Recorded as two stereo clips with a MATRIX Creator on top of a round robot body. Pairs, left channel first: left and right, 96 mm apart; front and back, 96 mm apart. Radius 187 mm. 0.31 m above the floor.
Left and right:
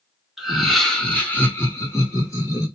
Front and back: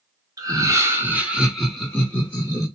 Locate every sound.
0.4 s laughter: 175° right, 1.6 m; by 2.7 s 50° left, 1.8 m